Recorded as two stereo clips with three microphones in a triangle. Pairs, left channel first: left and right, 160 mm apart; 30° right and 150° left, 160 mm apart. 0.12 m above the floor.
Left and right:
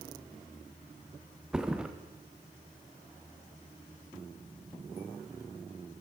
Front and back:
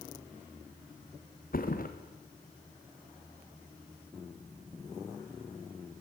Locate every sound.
1.5 s a thud: 5° right, 3 m